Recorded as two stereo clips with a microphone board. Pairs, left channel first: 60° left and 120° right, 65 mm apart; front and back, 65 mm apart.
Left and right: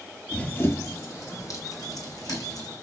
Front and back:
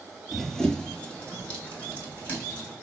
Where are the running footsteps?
90° left, 0.8 m; by 2.7 s 65° left, 2.5 m.